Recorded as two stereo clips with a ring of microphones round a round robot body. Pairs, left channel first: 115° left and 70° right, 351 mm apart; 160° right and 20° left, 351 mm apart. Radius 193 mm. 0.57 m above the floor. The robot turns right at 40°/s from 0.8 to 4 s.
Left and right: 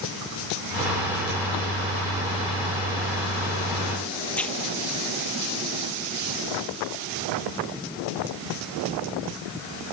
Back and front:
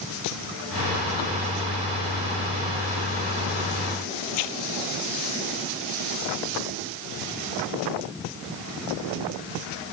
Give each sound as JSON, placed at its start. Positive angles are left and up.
{"t": 4.3, "sound": "tearing paper", "azimuth_deg": -160}